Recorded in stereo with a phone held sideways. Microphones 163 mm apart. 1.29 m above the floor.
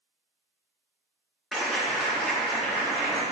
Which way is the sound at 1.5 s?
Centre (ahead or behind).